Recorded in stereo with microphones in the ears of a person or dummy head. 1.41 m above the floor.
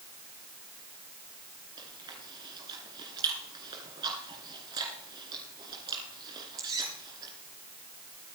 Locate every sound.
1.8 s chewing: 25° right (ahead or behind), 2.5 m